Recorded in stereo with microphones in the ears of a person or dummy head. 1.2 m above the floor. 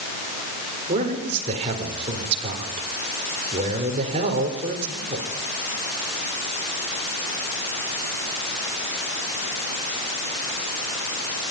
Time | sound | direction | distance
0.9 | a man speaking | 35° right (ahead or behind) | 4 m